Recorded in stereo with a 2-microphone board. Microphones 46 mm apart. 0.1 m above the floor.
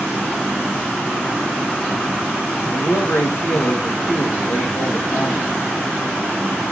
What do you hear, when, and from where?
2.6 s a man speaking: 65° left (ahead or behind), 4 m